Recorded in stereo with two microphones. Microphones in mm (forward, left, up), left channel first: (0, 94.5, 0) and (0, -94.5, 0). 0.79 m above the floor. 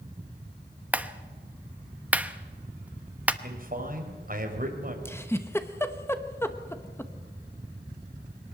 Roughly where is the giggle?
Centre.